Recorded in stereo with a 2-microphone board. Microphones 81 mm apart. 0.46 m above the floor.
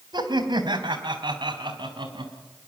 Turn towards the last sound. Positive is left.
turn(degrees=-75)  # may be behind; listen again after turning